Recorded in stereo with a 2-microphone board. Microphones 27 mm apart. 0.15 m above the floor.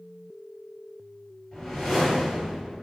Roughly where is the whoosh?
Centre.